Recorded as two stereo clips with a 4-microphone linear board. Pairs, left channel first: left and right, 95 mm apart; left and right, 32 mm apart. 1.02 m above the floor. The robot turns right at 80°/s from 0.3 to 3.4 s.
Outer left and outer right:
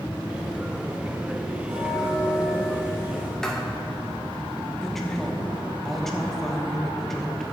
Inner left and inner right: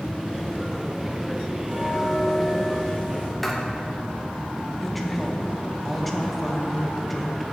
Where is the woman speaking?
5° left (ahead or behind), 0.9 m.